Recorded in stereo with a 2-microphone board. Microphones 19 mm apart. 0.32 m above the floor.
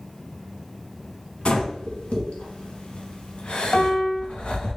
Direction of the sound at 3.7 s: 45° left (ahead or behind).